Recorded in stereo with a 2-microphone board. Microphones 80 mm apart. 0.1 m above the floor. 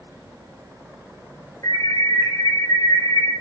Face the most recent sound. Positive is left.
turn(degrees=55)  # may be behind; listen again after turning